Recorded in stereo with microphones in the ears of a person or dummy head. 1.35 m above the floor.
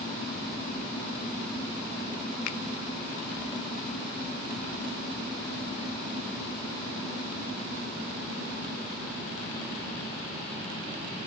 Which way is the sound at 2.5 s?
55° left (ahead or behind).